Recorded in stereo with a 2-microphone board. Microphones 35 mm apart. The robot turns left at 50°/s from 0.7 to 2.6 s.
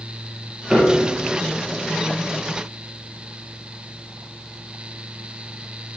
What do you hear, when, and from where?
0.7 s a piano: 35° right (ahead or behind), 5 m; by 1.2 s 60° right (ahead or behind), 5 m